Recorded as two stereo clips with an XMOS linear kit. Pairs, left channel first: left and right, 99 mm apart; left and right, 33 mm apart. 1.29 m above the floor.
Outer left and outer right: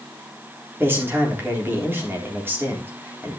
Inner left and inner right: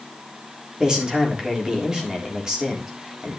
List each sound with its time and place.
0.8 s a man speaking: 20° right (ahead or behind), 3.5 m